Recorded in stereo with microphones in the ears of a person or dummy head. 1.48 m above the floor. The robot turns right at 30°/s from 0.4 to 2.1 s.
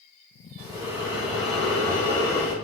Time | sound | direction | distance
0.6 | breathing | 30° right | 1.3 m